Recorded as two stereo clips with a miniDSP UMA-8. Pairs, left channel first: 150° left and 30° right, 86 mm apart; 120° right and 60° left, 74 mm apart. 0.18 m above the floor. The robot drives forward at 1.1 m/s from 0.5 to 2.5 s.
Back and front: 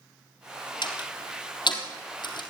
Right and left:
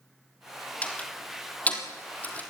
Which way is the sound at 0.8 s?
170° left.